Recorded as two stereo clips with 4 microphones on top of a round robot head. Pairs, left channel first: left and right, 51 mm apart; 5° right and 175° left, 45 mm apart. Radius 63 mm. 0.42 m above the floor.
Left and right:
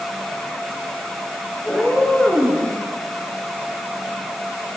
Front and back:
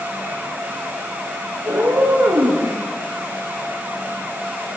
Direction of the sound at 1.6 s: 175° left.